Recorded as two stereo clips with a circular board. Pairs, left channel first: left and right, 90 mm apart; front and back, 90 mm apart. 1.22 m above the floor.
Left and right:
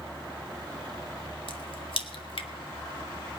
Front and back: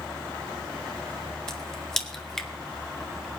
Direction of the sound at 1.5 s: 85° left.